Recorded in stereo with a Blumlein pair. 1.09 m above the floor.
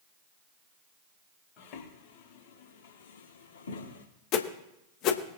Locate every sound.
1.6 s footsteps: 40° left, 4 m; by 4.0 s 70° left, 4 m
4.3 s a whoosh: 35° left, 1.2 m